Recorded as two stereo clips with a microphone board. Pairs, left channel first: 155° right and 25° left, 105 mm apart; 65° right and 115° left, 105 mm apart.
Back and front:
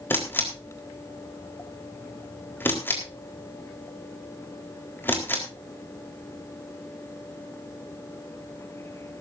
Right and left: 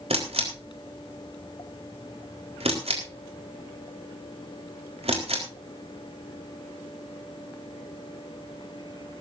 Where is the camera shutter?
130° left, 4 m.